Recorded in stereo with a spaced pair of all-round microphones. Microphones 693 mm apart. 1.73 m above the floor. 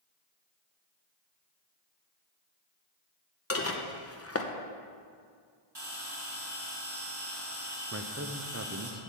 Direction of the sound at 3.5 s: 20° left (ahead or behind).